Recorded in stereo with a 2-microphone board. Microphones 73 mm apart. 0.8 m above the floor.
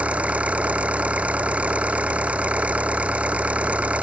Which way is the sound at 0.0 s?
20° right (ahead or behind).